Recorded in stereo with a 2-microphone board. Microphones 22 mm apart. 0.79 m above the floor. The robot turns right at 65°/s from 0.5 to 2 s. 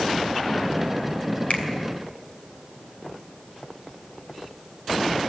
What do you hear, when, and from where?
1.5 s a finger snap: 85° left, 2.5 m; by 1.6 s 75° left (ahead or behind), 2.5 m